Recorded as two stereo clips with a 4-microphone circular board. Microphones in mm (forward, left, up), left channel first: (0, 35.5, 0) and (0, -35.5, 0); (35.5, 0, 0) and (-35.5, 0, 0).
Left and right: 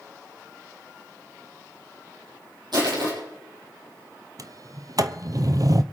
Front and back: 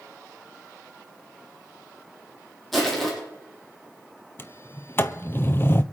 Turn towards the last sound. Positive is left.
turn(degrees=-60)